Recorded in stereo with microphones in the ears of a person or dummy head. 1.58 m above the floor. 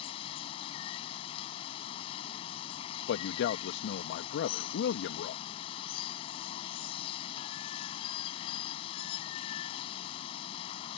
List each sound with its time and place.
0.0 s running water: 30° left (ahead or behind)
3.1 s a man speaking: 70° left (ahead or behind)